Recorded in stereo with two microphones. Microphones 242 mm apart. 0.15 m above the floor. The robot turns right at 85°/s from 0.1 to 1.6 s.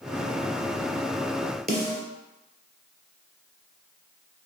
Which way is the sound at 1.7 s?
40° right (ahead or behind).